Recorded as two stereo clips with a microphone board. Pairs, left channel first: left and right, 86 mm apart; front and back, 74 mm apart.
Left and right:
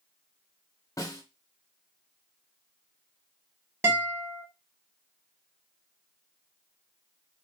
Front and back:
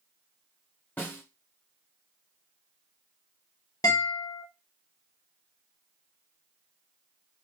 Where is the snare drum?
60° left, 0.8 m.